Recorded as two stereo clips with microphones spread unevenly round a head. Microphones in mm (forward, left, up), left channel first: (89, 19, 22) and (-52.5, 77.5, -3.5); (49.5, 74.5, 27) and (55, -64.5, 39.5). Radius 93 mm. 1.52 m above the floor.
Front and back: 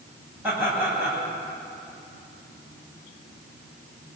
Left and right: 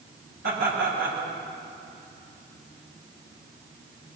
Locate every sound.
0.4 s laughter: 120° right, 9 m